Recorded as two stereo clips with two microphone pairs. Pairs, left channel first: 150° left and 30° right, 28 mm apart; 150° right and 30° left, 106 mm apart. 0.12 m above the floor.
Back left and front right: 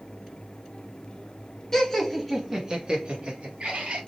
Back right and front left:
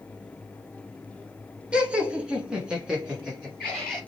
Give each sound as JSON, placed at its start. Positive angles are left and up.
{"t": 1.7, "sound": "laughter", "azimuth_deg": 95, "distance_m": 1.3}